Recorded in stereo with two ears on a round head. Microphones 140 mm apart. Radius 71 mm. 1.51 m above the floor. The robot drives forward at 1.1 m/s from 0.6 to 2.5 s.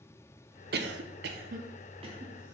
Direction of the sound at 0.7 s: 60° right (ahead or behind).